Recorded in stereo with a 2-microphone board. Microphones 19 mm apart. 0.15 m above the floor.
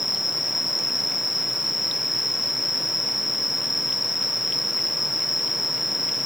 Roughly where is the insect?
Centre.